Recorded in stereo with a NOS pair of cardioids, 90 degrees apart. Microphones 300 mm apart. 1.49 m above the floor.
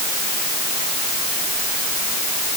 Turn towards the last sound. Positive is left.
No sound to turn to.